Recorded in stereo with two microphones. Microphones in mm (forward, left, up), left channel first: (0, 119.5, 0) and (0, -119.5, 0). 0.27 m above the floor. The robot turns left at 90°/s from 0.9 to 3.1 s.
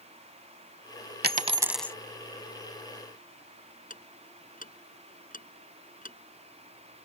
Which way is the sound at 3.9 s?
35° left (ahead or behind).